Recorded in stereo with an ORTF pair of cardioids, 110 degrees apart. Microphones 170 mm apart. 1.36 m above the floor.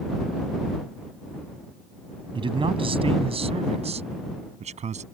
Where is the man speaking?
30° right; by 5.0 s 40° right.